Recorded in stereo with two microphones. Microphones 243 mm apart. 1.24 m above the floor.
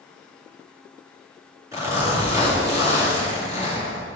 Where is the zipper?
15° right (ahead or behind), 2.5 m.